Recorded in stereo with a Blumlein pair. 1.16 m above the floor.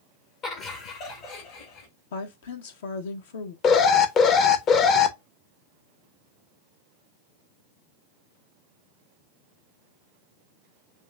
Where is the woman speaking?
60° left, 0.8 m.